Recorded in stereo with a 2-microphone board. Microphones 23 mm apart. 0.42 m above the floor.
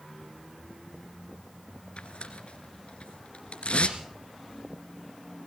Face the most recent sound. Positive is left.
turn(degrees=60)  # may be behind; listen again after turning